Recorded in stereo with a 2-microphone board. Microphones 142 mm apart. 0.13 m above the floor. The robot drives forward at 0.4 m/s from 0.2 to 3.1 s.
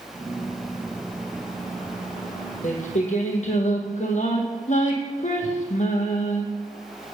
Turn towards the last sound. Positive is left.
turn(degrees=60)  # may be behind; listen again after turning